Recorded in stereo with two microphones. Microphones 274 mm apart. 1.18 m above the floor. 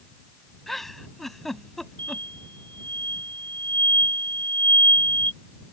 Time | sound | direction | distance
0.7 | a giggle | centre (ahead or behind) | ?
2.0 | an explosion | 40° right (ahead or behind) | ?